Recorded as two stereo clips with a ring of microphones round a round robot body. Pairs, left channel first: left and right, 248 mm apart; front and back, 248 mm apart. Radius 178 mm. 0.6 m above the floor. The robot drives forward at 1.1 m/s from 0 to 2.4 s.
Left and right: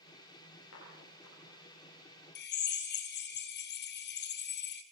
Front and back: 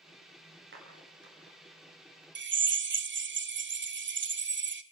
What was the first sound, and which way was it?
A clap, 140° left.